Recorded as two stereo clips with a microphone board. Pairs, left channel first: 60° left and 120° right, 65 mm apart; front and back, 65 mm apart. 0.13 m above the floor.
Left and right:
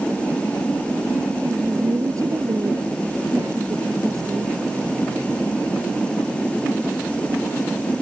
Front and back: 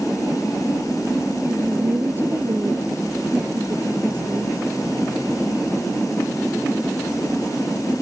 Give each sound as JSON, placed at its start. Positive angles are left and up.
{"t": 1.4, "sound": "a woman speaking", "azimuth_deg": -130}